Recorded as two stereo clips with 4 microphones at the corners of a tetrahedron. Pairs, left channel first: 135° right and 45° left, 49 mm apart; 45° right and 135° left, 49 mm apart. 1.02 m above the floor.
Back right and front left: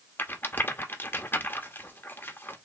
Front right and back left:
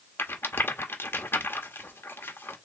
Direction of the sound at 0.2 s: 85° right.